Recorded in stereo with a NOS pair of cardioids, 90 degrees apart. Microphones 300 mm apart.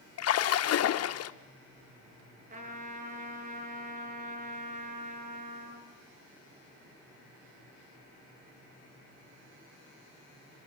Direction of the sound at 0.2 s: 55° left.